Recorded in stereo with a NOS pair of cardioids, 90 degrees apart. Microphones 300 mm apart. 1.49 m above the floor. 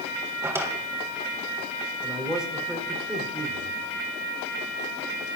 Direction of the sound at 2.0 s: 5° right.